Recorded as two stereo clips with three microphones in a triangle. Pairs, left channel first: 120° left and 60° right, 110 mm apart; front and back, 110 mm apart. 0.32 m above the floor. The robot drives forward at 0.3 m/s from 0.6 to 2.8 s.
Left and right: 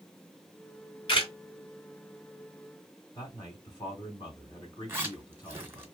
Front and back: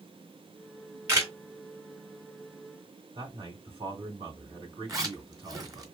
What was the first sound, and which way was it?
A camera shutter, 120° left.